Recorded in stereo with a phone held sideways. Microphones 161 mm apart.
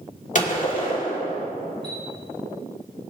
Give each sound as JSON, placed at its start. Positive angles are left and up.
{"t": 0.3, "sound": "a gunshot", "side_deg": 50, "distance_m": 2.5}
{"t": 1.8, "sound": "a chime", "side_deg": 35, "distance_m": 3.5}